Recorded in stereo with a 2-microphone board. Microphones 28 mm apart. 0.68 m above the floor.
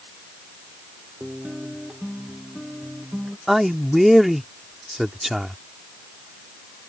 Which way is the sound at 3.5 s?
10° right (ahead or behind).